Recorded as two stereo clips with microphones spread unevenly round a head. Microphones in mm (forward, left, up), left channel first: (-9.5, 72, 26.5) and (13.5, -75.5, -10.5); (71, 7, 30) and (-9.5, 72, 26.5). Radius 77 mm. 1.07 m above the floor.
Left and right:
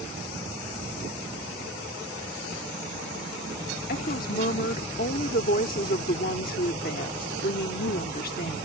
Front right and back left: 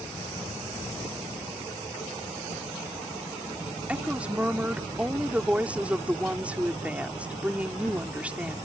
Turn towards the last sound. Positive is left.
turn(degrees=65)